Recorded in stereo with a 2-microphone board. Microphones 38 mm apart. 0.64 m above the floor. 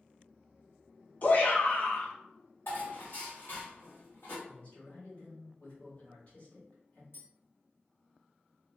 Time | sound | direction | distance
1.2 | a shout | 45° left (ahead or behind) | 0.8 m
2.7 | dishes clattering | 75° left (ahead or behind) | 1.8 m
4.5 | a man speaking | 50° left (ahead or behind) | 1.8 m
7.1 | tapping | 80° left | 2.0 m